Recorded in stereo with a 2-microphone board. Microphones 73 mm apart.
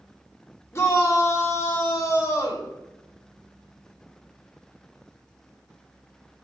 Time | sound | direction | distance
0.7 | a shout | 35° left (ahead or behind) | 0.9 m